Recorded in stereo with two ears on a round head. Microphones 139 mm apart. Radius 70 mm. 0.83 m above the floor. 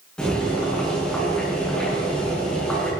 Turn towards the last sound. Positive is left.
turn(degrees=5)  # may be behind; listen again after turning